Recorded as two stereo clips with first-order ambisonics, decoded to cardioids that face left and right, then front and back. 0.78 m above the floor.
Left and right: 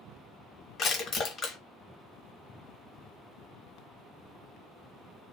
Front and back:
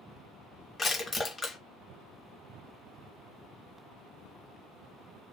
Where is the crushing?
70° left, 0.9 m.